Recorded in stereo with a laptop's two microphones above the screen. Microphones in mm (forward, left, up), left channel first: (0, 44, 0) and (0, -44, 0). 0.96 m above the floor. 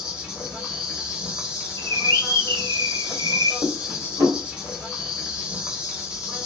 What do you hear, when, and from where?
0.0 s an insect: 10° right (ahead or behind), 0.8 m
1.8 s a bird: 75° right (ahead or behind), 1.2 m
3.6 s dishes clattering: 80° right, 1.4 m